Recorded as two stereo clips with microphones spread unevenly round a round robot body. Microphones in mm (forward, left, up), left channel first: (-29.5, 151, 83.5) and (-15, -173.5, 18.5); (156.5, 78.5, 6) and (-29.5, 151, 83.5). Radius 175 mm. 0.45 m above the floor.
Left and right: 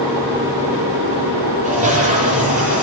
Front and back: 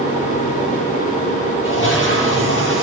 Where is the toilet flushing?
20° right, 8 m.